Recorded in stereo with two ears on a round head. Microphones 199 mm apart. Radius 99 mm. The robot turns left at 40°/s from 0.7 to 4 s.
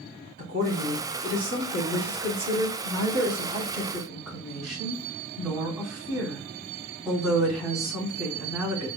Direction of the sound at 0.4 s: 45° right.